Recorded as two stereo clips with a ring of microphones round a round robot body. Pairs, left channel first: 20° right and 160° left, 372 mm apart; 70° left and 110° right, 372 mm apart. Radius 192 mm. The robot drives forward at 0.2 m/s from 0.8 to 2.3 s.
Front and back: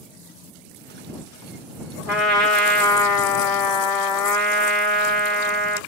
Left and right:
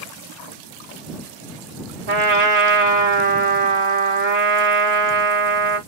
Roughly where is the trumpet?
Behind right.